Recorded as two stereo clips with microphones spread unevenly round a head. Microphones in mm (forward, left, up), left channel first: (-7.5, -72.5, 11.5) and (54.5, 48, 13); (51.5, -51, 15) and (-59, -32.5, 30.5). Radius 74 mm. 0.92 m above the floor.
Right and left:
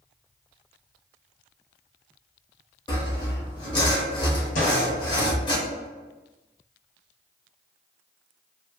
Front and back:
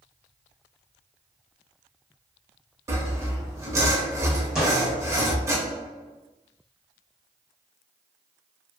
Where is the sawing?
155° right, 0.7 m.